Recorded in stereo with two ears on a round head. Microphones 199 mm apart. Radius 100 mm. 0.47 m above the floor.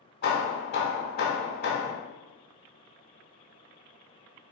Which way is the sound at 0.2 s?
45° left (ahead or behind).